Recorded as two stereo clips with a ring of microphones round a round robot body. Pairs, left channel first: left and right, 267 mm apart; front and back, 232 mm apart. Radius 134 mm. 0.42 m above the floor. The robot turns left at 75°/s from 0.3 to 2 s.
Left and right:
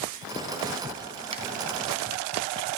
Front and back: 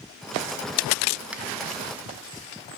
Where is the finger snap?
105° right, 0.5 m; by 1.4 s 115° right, 0.5 m.